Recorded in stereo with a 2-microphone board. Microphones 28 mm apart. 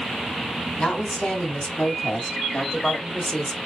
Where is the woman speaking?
45° left (ahead or behind), 3 m; by 3.6 s 25° left (ahead or behind), 1.2 m.